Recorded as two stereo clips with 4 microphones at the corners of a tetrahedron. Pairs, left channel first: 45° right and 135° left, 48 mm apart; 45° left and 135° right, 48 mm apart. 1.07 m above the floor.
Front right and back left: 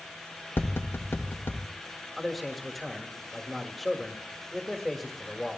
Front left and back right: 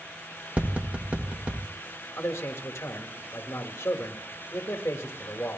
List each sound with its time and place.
0.6 s tapping: 75° right, 1.5 m
2.2 s a man speaking: 45° left, 1.7 m